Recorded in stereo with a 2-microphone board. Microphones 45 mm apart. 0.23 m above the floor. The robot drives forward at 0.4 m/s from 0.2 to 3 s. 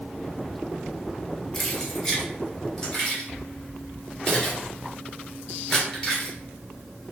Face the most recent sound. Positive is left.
turn(degrees=10)  # may be behind; listen again after turning